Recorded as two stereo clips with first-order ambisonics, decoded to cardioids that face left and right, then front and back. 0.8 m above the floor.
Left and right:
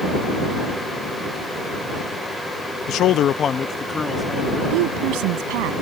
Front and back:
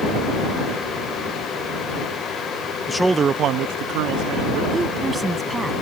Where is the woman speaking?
100° right.